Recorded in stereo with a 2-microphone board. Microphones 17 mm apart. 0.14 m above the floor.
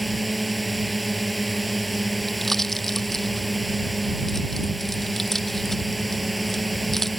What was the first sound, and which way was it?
A drone, 5° left (ahead or behind).